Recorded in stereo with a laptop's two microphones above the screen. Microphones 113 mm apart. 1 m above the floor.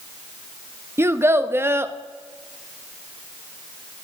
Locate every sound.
1.0 s a child speaking: 20° right (ahead or behind), 0.6 m